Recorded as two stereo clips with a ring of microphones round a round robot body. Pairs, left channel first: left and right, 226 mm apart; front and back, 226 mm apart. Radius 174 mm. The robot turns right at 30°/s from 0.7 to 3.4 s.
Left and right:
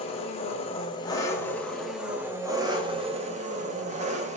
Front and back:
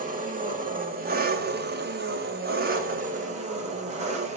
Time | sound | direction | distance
0.0 | an engine running | 145° left | 1.2 m